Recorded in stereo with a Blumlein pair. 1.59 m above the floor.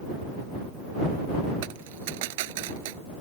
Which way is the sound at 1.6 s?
50° right.